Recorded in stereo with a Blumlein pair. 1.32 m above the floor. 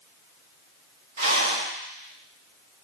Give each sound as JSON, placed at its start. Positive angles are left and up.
{"t": 1.2, "sound": "a rattle", "azimuth_deg": -70, "distance_m": 1.2}